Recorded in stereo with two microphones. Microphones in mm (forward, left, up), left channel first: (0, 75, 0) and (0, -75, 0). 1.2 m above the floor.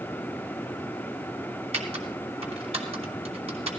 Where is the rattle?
No rattle in this recording.